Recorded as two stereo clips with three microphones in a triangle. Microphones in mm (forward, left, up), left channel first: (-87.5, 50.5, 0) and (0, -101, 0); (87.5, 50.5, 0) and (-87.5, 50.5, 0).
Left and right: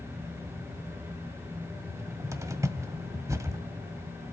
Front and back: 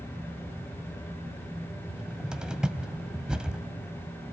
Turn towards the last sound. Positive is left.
turn(degrees=-100)